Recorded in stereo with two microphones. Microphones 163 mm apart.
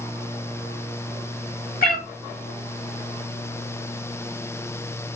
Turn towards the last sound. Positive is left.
turn(degrees=65)  # may be behind; listen again after turning